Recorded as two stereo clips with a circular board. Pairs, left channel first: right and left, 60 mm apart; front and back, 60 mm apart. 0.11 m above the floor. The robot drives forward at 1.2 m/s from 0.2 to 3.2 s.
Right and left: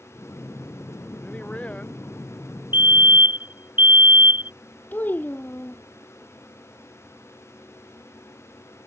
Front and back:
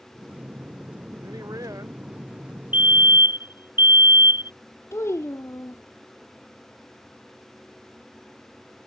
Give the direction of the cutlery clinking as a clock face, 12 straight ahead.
I don't hear cutlery clinking.